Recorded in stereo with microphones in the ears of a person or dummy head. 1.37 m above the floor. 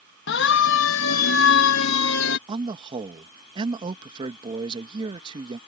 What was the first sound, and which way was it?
A siren, 60° left (ahead or behind).